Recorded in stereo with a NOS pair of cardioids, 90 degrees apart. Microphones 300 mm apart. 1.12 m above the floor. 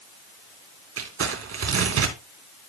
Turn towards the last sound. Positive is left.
turn(degrees=-50)